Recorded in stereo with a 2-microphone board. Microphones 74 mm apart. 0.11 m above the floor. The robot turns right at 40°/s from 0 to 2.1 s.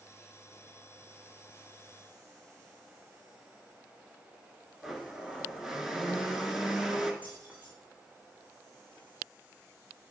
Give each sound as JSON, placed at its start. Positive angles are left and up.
{"t": 4.8, "sound": "a blender", "side_deg": -10, "distance_m": 1.0}
{"t": 7.2, "sound": "keys jangling", "side_deg": -20, "distance_m": 4.0}